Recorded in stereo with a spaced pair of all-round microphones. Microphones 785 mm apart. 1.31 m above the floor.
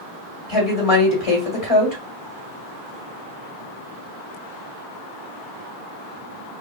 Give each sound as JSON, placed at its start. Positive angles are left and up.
{"t": 0.5, "sound": "a woman speaking", "side_deg": 45, "distance_m": 2.0}